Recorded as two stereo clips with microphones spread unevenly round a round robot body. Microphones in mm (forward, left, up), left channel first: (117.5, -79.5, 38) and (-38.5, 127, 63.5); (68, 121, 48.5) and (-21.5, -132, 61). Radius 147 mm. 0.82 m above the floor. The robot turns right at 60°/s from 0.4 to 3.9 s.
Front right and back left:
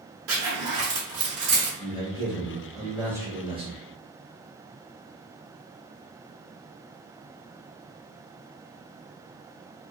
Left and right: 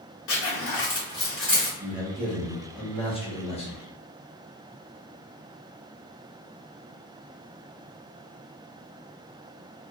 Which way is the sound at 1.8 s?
35° right.